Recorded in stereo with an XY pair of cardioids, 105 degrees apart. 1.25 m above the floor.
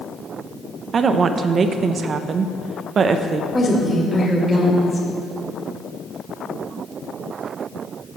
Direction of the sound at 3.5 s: 15° left.